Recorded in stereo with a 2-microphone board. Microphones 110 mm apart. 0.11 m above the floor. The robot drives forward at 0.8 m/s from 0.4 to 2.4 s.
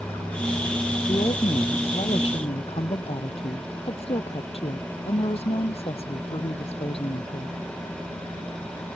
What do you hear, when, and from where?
1.1 s a woman speaking: 45° left (ahead or behind); by 7.6 s 55° left (ahead or behind)